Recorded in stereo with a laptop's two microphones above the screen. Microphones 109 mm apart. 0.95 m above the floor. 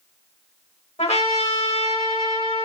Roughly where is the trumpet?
Left.